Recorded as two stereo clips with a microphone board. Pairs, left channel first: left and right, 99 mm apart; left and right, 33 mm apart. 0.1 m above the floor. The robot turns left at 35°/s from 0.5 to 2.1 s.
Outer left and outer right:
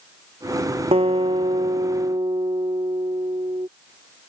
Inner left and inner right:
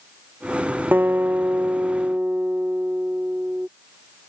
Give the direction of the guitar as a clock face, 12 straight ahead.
3 o'clock.